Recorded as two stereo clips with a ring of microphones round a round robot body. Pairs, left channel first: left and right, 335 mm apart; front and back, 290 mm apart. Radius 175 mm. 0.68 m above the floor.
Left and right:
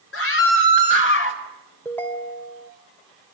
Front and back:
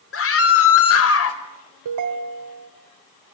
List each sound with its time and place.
0.1 s a scream: 40° left, 3 m; by 1.4 s 35° left, 4.5 m
1.9 s a ringtone: 175° left, 2.5 m